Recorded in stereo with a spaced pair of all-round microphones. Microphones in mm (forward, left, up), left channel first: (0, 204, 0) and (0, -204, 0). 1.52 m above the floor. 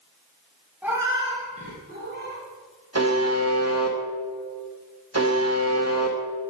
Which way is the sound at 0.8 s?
5° right (ahead or behind).